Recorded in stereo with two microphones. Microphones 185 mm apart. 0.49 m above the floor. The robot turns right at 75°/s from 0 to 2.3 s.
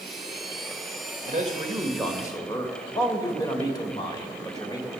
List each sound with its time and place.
1.2 s a man speaking: 55° right, 1.9 m; by 4.9 s 25° left, 1.9 m